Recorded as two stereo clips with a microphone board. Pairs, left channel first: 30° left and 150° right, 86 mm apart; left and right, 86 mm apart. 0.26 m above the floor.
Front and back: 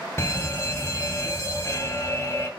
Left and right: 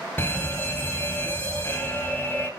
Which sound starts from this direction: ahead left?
A fire alarm, at 0.2 s.